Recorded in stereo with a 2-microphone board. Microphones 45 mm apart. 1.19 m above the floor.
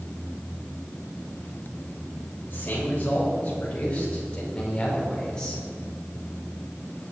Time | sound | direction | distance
2.5 | a man speaking | 40° left (ahead or behind) | 5.5 m